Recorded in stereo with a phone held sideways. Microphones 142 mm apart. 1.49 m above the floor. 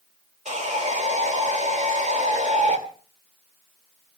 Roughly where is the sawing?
Right.